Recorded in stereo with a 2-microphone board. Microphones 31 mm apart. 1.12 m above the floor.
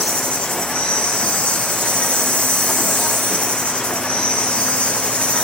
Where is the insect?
45° left (ahead or behind), 0.9 m.